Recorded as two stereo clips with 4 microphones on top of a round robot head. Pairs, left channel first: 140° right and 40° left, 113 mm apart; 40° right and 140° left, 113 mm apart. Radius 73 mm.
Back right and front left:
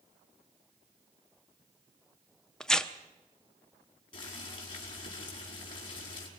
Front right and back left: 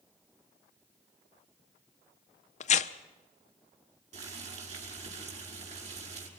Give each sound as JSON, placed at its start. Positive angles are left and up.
{"t": 2.6, "sound": "tearing paper", "azimuth_deg": -55, "distance_m": 0.8}
{"t": 4.1, "sound": "boiling", "azimuth_deg": 170, "distance_m": 5.0}